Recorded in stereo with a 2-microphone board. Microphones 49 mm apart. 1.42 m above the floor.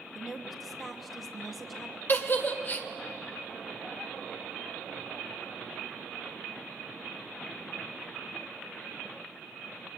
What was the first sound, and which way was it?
A woman speaking, centre (ahead or behind).